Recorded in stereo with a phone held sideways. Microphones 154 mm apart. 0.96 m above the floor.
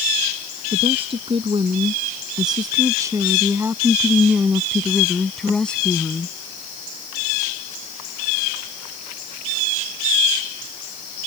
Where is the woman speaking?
40° right (ahead or behind); by 6.4 s 10° left (ahead or behind).